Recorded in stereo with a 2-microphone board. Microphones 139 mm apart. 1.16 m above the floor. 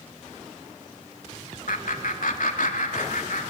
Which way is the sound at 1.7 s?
75° left (ahead or behind).